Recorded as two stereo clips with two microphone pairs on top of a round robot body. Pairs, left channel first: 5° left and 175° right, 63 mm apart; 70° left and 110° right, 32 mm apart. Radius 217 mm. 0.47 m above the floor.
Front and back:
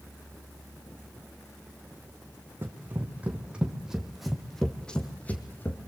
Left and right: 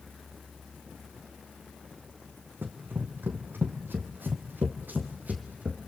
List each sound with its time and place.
2.6 s running footsteps: 115° right, 1.9 m; by 5.9 s 55° right, 1.7 m